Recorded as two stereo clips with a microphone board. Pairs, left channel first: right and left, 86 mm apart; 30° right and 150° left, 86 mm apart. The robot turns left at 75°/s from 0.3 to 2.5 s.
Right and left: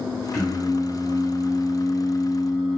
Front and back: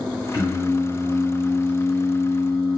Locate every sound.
0.3 s singing: 15° right, 1.5 m; by 2.8 s straight behind, 1.5 m